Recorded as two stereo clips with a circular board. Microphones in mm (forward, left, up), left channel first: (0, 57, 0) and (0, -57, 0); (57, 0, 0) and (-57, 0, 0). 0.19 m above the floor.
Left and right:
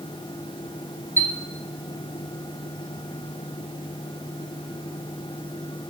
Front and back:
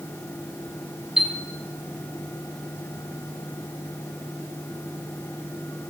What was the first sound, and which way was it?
A chime, 100° left.